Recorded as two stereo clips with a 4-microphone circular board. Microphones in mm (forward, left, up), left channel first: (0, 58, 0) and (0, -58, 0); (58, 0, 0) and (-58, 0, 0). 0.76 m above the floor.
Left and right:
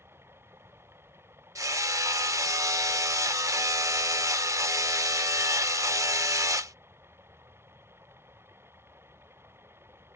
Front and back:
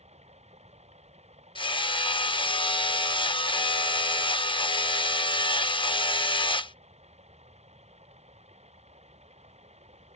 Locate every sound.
0.0 s running water: 160° right
1.6 s hammering: 35° right